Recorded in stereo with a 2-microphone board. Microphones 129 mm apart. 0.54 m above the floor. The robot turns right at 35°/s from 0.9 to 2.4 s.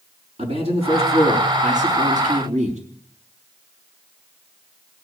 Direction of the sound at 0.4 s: 120° right.